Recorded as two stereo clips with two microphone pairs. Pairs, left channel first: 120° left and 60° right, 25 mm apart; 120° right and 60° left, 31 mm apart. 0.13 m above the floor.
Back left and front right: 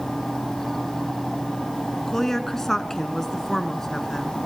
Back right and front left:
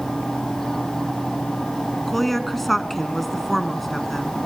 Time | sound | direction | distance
2.1 | a woman speaking | 160° left | 1.1 m